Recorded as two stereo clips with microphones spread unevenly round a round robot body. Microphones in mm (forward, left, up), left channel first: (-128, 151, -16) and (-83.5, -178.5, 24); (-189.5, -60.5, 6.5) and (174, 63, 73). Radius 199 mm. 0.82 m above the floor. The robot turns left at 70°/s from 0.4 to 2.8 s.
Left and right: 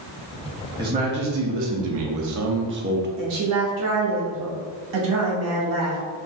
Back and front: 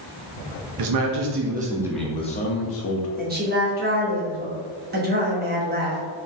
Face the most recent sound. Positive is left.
turn(degrees=-50)